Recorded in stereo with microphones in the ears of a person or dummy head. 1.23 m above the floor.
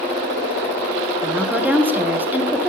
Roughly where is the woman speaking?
Centre.